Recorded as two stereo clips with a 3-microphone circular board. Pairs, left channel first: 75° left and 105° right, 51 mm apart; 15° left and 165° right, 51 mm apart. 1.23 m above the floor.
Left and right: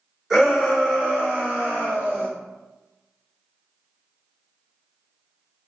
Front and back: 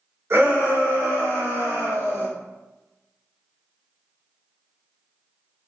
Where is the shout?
170° left, 1.9 m; by 2.3 s 150° right, 2 m.